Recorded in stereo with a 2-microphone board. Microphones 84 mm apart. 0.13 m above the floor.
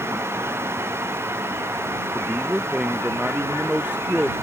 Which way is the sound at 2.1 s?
10° right (ahead or behind).